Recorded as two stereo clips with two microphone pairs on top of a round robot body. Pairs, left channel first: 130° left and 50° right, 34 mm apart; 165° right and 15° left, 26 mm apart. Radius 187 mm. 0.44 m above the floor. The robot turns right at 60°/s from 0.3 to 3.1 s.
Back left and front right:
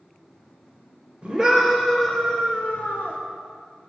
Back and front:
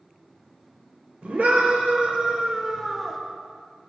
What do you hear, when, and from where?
1.2 s a scream: straight ahead, 3.5 m; by 3.2 s 115° left, 3.5 m